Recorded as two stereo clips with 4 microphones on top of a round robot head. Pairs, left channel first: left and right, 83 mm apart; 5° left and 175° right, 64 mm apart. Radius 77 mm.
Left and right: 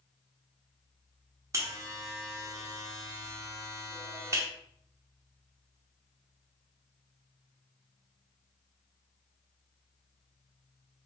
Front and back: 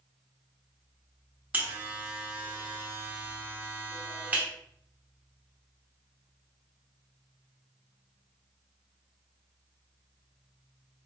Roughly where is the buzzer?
Behind right.